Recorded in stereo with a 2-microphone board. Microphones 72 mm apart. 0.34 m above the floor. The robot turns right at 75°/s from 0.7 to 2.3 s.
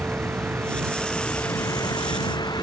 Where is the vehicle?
25° right; by 2.6 s 95° left.